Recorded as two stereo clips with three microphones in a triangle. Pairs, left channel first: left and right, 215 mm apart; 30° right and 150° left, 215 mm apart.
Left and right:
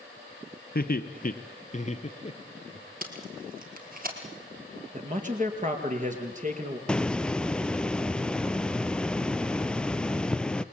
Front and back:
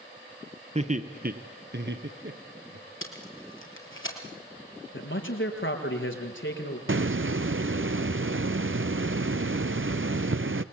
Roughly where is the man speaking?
Ahead right.